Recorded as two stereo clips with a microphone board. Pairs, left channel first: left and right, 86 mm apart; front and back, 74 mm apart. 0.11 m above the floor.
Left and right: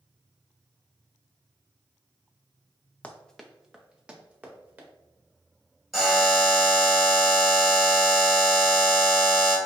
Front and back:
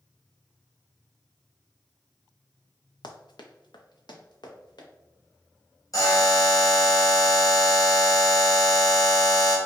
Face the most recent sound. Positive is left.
turn(degrees=0)